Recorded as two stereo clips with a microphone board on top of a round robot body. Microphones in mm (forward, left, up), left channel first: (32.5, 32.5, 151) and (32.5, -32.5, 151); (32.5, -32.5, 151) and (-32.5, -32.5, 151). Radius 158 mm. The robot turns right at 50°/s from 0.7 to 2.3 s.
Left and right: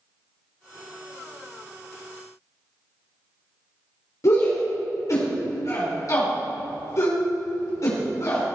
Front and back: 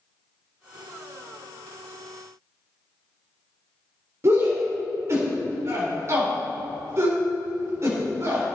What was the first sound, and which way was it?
A shout, 130° left.